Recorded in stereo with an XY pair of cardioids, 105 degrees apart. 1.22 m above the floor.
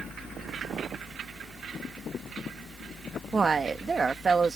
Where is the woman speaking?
30° right.